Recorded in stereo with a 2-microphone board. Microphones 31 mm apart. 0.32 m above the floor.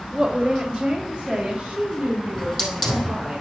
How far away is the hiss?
About 3.5 m.